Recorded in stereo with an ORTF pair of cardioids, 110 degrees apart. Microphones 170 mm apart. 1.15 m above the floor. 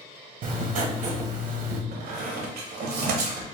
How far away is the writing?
About 0.7 m.